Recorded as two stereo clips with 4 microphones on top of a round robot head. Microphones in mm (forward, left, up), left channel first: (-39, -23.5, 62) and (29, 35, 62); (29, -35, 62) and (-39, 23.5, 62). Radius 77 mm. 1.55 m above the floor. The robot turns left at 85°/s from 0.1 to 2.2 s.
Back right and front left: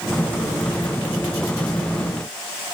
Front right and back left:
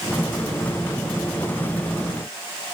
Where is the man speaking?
No man speaking in this recording.